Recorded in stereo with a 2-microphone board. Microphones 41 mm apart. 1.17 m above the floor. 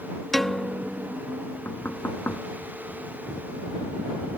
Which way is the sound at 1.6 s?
60° left (ahead or behind).